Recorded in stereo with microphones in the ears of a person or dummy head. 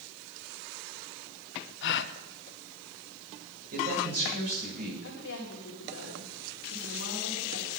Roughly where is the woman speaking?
Left.